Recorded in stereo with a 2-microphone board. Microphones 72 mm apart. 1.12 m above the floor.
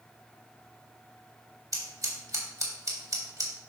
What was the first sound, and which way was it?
Scissors, 55° right (ahead or behind).